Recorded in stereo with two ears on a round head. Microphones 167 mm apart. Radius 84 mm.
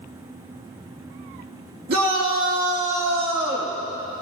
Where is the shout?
55° right (ahead or behind), 2.5 m; by 3.8 s 15° right (ahead or behind), 1.8 m.